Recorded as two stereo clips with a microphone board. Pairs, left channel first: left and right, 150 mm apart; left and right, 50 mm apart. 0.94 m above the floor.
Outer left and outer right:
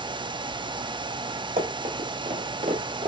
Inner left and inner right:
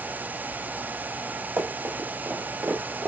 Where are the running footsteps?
60° right (ahead or behind), 1.8 m; by 3.1 s 45° right (ahead or behind), 1.4 m.